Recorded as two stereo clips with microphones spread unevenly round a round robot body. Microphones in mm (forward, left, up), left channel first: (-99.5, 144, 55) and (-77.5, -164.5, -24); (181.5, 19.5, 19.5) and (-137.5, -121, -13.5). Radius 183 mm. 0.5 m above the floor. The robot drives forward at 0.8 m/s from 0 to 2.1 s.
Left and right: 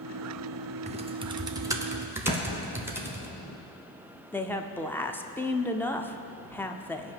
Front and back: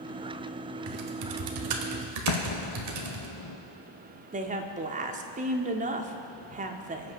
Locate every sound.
0.9 s typing on a keyboard: 130° right, 0.8 m; by 3.3 s 160° right, 1.5 m
2.3 s an explosion: 35° left, 1.2 m
4.3 s a woman speaking: 160° right, 0.7 m